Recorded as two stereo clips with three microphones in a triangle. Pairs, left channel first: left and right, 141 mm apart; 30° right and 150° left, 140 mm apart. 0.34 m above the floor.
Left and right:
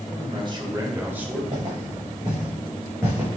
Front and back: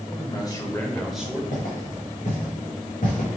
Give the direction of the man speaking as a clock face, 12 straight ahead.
2 o'clock.